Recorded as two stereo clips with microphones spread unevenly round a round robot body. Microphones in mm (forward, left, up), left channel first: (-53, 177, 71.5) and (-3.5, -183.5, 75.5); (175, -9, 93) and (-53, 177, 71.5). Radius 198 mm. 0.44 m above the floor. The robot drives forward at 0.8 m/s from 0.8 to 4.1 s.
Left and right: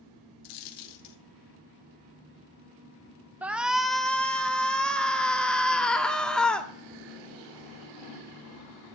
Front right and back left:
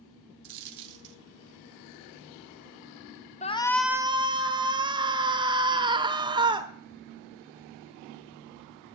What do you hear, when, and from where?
0.4 s a dropped coin: 125° left, 0.8 m; by 1.2 s 140° left, 1.0 m
3.4 s a shout: straight ahead, 0.7 m; by 8.9 s straight behind, 0.7 m